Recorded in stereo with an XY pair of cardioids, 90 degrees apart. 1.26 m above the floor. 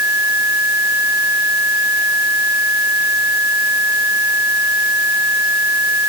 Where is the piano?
I don't hear a piano.